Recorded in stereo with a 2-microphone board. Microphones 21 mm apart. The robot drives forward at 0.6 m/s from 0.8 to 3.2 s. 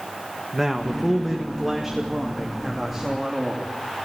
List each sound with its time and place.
0.5 s a man speaking: 10° right (ahead or behind), 1.8 m; by 3.7 s 5° right (ahead or behind), 3 m